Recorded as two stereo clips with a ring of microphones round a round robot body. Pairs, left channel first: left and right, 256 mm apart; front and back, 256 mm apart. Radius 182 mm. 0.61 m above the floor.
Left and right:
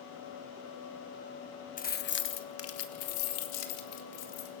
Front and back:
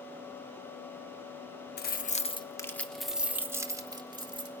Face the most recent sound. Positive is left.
turn(degrees=110)